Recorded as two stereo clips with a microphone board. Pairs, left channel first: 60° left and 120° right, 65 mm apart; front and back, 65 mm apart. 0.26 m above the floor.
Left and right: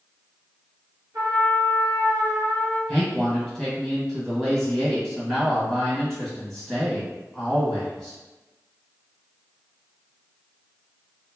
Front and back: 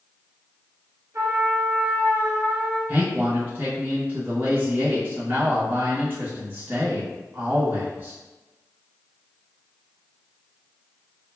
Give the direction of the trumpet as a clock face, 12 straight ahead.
5 o'clock.